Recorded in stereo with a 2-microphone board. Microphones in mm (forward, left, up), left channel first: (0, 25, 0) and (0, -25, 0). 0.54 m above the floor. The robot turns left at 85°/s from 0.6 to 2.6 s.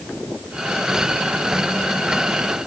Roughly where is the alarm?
No alarm in this recording.